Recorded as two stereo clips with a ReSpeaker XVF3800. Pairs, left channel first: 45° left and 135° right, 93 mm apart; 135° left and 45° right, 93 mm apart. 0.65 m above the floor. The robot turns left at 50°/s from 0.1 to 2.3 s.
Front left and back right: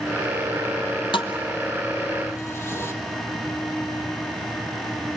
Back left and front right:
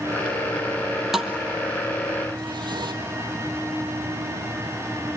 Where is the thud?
45° left, 1.5 m; by 2.9 s 15° right, 1.5 m.